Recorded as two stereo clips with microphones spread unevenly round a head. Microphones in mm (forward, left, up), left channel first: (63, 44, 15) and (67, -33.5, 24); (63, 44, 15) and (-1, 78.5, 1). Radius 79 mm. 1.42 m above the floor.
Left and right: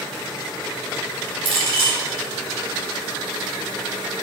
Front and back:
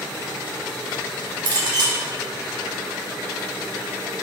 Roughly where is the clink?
Behind right.